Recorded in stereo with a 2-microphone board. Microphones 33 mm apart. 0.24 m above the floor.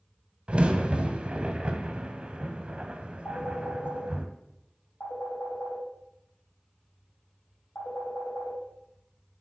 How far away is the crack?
About 0.8 m.